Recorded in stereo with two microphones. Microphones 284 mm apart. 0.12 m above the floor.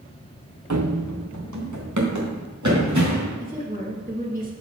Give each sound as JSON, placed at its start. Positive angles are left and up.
{"t": 0.7, "sound": "running footsteps", "side_deg": -75, "distance_m": 0.7}
{"t": 3.4, "sound": "a woman speaking", "side_deg": -30, "distance_m": 2.0}